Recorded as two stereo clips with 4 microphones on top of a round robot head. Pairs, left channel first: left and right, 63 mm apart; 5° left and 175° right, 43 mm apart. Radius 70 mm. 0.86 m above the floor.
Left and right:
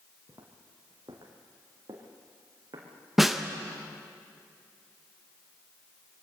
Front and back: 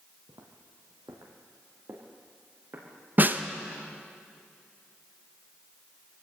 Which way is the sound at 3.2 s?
175° right.